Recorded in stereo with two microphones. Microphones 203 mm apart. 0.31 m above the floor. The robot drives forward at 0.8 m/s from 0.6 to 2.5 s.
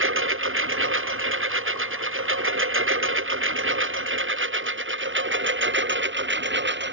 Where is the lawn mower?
90° right; by 6.9 s 65° right (ahead or behind).